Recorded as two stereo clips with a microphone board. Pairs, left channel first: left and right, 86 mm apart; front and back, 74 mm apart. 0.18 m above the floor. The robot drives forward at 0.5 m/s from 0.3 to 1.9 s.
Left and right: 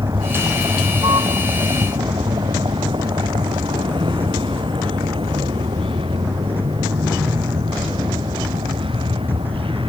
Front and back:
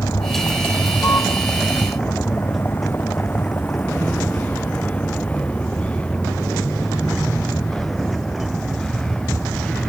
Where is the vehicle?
45° right; by 9.9 s 80° right.